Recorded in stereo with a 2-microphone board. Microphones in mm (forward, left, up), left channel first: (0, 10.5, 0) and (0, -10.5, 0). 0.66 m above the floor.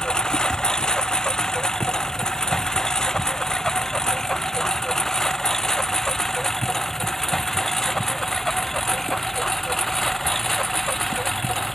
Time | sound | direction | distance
0.0 | a lawn mower | 30° left (ahead or behind) | ?